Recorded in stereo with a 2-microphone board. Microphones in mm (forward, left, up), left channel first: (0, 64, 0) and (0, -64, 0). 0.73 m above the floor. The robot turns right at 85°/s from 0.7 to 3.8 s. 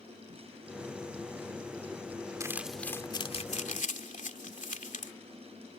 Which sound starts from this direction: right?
Crumpling, at 2.4 s.